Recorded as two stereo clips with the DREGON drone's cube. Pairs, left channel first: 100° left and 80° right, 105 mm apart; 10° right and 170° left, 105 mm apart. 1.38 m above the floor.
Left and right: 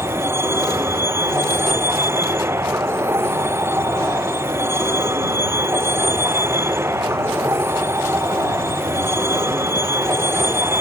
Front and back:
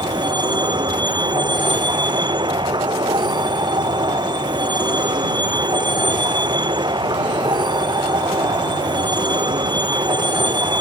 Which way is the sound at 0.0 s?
145° right.